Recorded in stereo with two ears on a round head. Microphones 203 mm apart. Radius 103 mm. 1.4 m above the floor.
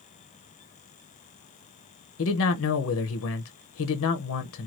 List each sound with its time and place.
2.2 s a man speaking: 65° left (ahead or behind), 0.8 m